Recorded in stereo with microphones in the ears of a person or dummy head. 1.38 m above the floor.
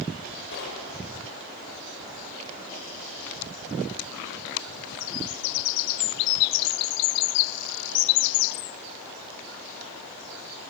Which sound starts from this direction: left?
Knocking, at 0.5 s.